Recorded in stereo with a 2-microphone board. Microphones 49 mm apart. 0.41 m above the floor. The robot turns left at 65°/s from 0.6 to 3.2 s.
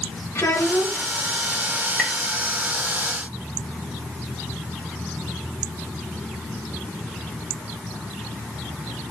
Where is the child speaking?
90° left, 2.5 m; by 1.1 s 60° left, 2.5 m.